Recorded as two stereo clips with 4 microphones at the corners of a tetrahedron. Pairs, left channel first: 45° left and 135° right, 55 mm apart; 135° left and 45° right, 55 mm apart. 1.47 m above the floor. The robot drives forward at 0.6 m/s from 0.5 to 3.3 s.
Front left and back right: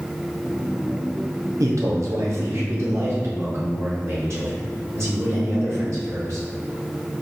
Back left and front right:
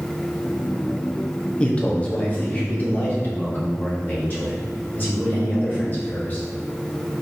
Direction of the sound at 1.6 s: 155° right.